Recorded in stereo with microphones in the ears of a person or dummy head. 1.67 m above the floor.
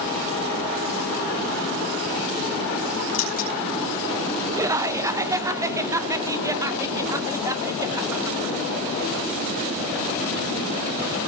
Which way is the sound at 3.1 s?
45° left (ahead or behind).